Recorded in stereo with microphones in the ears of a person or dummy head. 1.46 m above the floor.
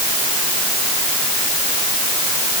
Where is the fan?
No fan in this recording.